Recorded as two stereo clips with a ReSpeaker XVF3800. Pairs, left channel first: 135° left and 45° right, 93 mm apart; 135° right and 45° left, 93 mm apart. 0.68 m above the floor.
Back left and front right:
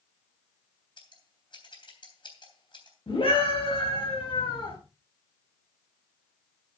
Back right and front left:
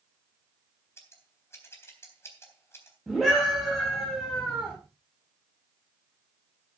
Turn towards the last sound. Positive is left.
turn(degrees=135)